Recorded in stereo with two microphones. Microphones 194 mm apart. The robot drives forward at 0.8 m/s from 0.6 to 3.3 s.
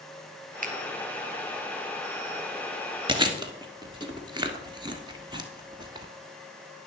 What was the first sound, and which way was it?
A finger snap, 45° right (ahead or behind).